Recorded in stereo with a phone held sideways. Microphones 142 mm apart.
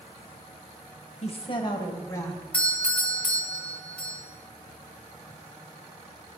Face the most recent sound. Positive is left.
turn(degrees=10)  # may be behind; listen again after turning